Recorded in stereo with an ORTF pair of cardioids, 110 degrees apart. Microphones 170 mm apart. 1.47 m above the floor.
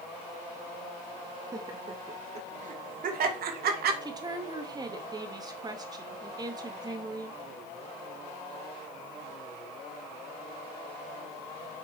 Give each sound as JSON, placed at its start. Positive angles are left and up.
{"t": 1.5, "sound": "laughter", "azimuth_deg": -20, "distance_m": 1.8}
{"t": 4.0, "sound": "a woman speaking", "azimuth_deg": -25, "distance_m": 2.5}